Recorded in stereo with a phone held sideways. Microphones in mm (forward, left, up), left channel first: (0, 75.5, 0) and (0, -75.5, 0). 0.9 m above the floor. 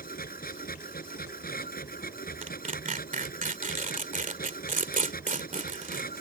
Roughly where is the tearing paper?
Right.